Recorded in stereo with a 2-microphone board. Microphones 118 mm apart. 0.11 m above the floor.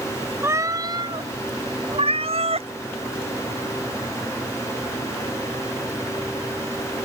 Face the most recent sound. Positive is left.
turn(degrees=-70)  # may be behind; listen again after turning